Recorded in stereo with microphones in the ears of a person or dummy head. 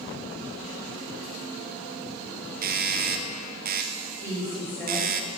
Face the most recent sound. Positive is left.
turn(degrees=10)  # may be behind; listen again after turning